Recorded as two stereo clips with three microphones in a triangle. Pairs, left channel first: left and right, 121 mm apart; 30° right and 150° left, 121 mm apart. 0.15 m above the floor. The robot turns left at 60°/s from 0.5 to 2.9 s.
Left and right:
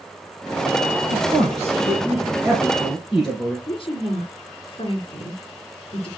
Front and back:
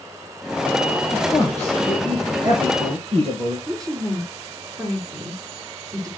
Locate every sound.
1.1 s a man speaking: 75° right, 2.5 m; by 3.6 s 175° left, 2.5 m
3.7 s a woman speaking: 100° left, 2.5 m